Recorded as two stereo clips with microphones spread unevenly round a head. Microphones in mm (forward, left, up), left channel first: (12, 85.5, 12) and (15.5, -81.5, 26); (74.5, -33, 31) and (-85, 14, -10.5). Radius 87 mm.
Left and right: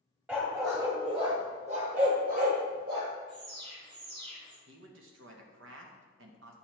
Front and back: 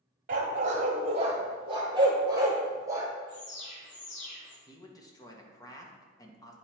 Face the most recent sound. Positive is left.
turn(degrees=-80)